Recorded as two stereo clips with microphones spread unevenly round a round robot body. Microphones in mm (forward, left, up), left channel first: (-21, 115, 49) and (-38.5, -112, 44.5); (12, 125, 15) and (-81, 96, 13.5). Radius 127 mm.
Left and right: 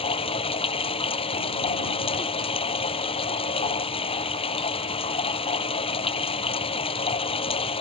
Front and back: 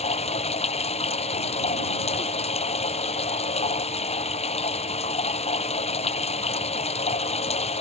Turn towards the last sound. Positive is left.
turn(degrees=15)